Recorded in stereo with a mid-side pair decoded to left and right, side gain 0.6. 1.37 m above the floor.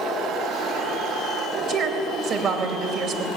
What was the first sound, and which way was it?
A woman speaking, 55° right.